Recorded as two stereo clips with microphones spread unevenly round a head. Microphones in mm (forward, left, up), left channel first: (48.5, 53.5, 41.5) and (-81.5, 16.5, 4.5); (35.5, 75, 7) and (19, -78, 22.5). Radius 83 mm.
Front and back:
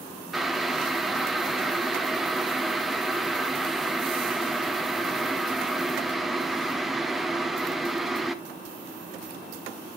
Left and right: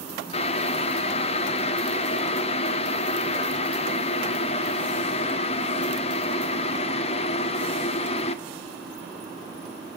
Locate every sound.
0.3 s boiling: 75° left, 0.6 m